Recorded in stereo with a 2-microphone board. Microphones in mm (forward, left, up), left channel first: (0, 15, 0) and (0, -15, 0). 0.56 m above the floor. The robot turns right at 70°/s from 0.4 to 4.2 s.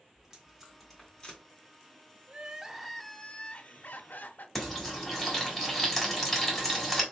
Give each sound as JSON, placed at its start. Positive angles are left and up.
{"t": 0.1, "sound": "tape being pulled", "side_deg": -15, "distance_m": 1.8}
{"t": 2.3, "sound": "crying", "azimuth_deg": -40, "distance_m": 0.5}
{"t": 4.5, "sound": "frying", "side_deg": 0, "distance_m": 1.6}